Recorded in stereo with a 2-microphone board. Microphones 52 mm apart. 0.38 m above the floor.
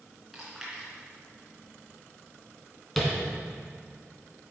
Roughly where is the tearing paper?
No tearing paper in this recording.